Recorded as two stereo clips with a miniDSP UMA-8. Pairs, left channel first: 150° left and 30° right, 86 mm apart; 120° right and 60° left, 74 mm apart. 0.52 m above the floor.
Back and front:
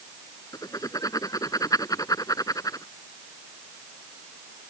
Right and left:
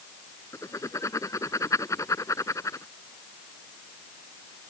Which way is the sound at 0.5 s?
165° right.